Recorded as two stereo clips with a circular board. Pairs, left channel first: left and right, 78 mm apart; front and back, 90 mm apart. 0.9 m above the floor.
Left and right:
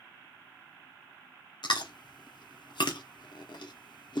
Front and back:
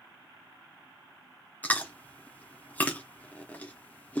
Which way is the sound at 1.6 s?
70° left.